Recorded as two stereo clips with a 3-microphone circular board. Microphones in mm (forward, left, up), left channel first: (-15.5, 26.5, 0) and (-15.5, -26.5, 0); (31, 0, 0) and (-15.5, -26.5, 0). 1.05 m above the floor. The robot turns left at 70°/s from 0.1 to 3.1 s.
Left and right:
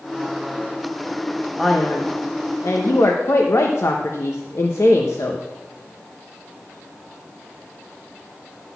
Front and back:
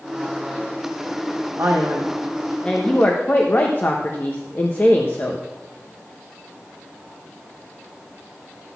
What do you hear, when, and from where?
1.6 s a man speaking: straight behind, 0.8 m; by 5.4 s 70° left, 0.8 m